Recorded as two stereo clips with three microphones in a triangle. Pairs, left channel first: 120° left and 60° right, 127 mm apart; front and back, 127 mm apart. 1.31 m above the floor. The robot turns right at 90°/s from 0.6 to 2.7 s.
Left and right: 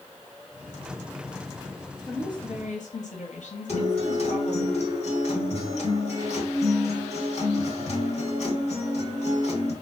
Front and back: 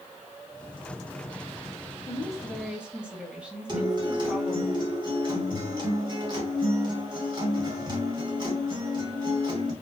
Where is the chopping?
No chopping in this recording.